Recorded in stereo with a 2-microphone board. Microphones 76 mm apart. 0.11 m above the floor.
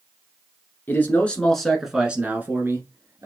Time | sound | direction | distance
0.9 | a man speaking | 30° left (ahead or behind) | 1.2 m